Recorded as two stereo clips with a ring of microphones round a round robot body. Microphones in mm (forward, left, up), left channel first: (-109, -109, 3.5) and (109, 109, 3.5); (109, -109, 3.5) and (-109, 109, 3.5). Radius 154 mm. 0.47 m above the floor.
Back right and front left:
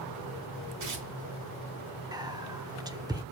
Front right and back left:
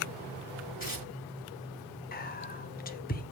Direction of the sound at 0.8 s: 15° left.